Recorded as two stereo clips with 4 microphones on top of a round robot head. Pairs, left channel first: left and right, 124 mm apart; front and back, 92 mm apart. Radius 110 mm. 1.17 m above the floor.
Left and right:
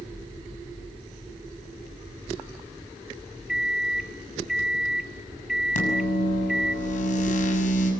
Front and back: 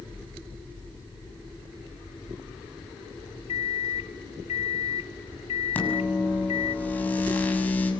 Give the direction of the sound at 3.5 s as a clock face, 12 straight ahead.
12 o'clock.